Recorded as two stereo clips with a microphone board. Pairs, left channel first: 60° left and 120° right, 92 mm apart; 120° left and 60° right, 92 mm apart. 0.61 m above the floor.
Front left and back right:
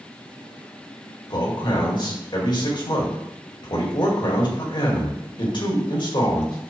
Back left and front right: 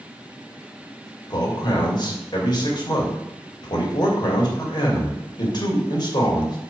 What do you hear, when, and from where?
1.3 s a man speaking: 85° left, 2.5 m